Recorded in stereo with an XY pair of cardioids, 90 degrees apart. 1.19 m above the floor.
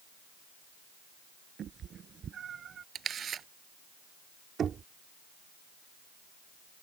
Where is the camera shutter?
60° right.